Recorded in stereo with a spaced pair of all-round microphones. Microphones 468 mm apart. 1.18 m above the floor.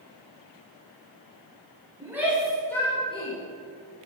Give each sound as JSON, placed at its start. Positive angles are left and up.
{"t": 2.0, "sound": "a shout", "side_deg": -5, "distance_m": 6.0}